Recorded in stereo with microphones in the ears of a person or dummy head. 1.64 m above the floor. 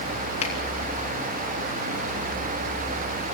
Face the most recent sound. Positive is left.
turn(degrees=40)  # may be behind; listen again after turning